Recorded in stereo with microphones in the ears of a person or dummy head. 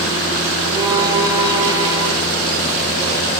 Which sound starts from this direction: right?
A violin, at 0.7 s.